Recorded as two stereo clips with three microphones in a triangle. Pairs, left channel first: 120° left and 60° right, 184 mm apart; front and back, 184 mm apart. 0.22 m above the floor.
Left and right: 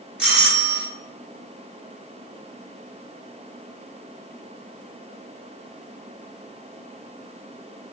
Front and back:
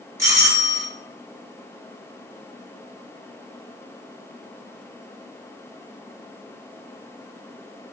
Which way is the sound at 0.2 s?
135° right.